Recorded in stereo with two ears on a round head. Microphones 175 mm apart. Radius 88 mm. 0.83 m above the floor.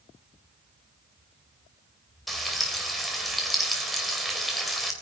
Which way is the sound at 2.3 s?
Centre (ahead or behind).